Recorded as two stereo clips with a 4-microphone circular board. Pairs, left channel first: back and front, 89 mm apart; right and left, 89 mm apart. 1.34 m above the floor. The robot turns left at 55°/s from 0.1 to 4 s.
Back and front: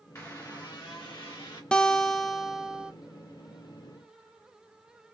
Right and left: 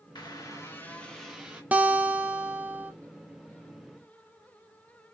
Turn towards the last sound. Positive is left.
turn(degrees=-5)